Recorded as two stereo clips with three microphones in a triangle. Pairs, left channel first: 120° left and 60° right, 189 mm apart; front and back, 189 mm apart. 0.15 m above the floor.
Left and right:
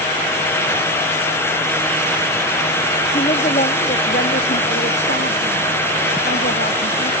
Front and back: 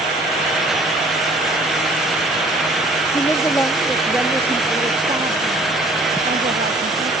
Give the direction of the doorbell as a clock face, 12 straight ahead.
No doorbell in this recording.